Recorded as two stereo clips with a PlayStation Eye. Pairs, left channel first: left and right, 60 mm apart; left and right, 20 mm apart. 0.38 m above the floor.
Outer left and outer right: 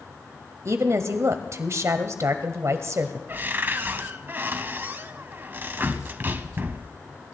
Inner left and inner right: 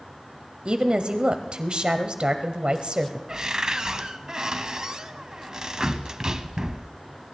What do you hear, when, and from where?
0.7 s a woman speaking: 55° right (ahead or behind), 1.5 m
3.3 s a cupboard door: 35° right (ahead or behind), 0.8 m